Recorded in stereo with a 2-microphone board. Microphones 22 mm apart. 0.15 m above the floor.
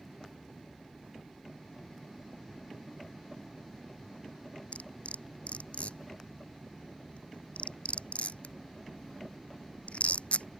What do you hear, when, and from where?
4.7 s cutlery clinking: 70° left (ahead or behind)